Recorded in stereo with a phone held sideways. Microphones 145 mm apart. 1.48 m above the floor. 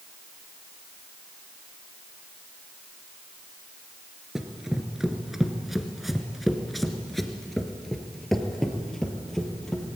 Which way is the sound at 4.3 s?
5° right (ahead or behind).